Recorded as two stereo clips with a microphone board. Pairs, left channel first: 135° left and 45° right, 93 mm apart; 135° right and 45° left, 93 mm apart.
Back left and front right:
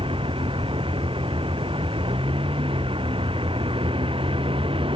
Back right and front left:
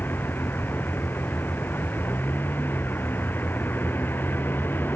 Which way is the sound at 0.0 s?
65° right.